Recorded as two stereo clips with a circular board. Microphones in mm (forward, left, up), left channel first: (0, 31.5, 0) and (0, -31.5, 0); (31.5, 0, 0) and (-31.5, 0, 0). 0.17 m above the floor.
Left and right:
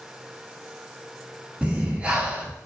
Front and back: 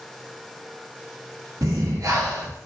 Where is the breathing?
160° right, 0.5 m.